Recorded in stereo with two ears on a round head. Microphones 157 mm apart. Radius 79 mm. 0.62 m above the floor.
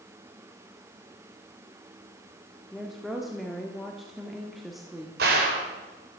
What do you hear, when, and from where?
2.7 s a woman speaking: centre (ahead or behind), 1.5 m
5.2 s a gunshot: 65° right (ahead or behind), 3 m